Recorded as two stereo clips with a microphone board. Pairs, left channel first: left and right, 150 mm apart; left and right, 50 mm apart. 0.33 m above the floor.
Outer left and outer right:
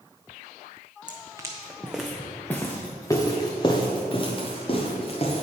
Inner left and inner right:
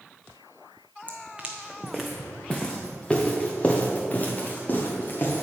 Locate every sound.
1.1 s footsteps: 30° right (ahead or behind), 1.0 m; by 5.4 s 40° left (ahead or behind), 2.5 m